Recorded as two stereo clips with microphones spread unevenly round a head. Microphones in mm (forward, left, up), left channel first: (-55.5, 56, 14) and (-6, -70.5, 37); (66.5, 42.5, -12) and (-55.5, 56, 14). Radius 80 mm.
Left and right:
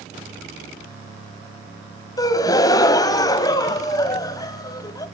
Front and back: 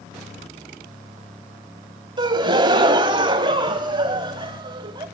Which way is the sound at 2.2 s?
175° left.